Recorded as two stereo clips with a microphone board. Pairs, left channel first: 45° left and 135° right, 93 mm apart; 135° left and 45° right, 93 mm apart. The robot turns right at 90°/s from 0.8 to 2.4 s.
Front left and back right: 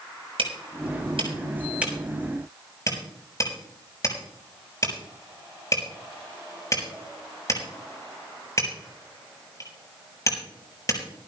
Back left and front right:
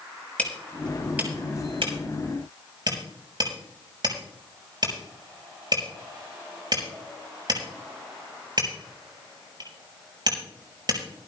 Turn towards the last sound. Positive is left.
turn(degrees=-10)